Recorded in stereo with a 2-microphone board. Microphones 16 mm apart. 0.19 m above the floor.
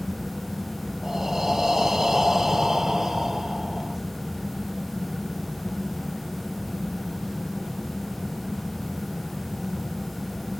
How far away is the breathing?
About 0.8 m.